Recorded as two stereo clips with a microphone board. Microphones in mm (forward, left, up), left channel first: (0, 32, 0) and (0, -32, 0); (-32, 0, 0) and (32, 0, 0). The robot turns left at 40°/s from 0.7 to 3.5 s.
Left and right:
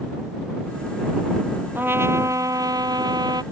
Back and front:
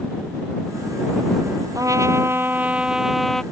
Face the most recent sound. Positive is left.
turn(degrees=-100)